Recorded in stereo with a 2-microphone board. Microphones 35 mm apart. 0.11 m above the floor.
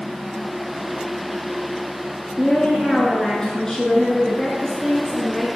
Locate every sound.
2.4 s a woman speaking: 20° left (ahead or behind), 1.1 m